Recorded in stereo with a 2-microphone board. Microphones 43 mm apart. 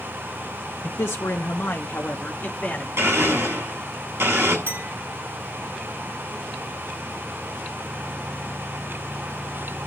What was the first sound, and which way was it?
A man speaking, 75° left (ahead or behind).